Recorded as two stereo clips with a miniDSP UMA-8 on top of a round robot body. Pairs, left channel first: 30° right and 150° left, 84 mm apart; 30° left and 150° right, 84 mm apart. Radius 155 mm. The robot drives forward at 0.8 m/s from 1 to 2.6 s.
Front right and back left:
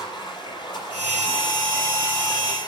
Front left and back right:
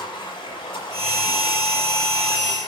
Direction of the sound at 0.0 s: 10° left.